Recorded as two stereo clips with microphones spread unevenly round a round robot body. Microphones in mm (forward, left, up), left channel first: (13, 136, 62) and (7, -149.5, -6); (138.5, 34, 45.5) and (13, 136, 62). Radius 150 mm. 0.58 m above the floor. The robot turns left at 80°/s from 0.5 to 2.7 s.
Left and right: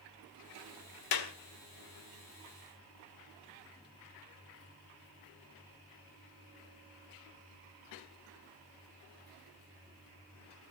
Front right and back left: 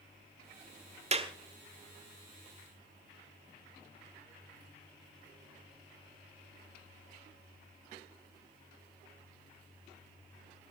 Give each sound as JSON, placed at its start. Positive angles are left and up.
{"t": 1.1, "sound": "a clap", "azimuth_deg": 90, "distance_m": 1.9}